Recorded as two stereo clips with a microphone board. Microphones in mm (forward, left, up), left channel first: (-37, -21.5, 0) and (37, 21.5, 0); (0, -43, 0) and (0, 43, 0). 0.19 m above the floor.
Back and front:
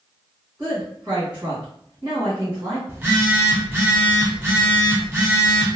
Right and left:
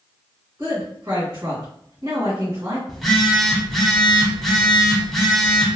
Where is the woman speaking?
90° left, 1.7 m.